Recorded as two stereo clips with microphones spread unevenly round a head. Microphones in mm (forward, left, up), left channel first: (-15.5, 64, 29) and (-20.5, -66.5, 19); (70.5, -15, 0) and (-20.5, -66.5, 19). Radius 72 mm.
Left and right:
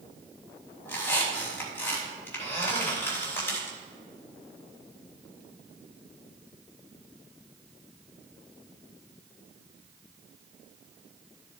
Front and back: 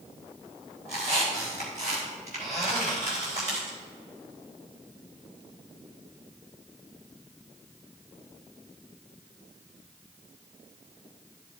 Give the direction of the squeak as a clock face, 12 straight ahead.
7 o'clock.